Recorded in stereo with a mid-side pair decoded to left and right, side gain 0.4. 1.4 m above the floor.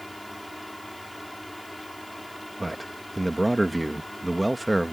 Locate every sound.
0.0 s a fan: 15° left
2.6 s a man speaking: straight ahead